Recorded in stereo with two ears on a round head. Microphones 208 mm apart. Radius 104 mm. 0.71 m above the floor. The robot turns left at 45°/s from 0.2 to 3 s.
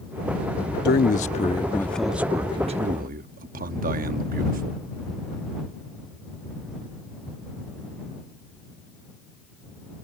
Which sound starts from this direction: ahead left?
A man speaking, at 0.8 s.